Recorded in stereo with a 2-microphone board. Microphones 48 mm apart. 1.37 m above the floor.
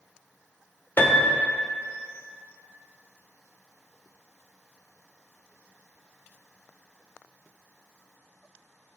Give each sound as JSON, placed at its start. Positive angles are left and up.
{"t": 1.0, "sound": "a piano", "side_deg": 45, "distance_m": 0.9}